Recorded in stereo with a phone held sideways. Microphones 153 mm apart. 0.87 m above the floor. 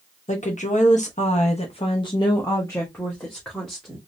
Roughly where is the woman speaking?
Left.